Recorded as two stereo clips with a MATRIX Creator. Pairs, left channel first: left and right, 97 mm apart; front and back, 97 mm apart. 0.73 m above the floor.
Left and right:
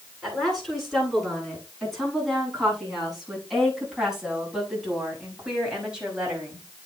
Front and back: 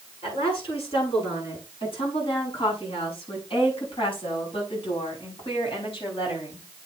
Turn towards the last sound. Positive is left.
turn(degrees=-15)